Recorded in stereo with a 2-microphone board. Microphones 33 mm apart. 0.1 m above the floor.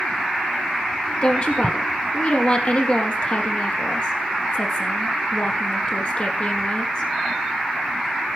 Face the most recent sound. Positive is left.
turn(degrees=35)  # may be behind; listen again after turning